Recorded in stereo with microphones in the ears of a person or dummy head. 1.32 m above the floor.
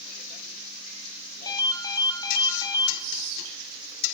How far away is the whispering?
About 6 m.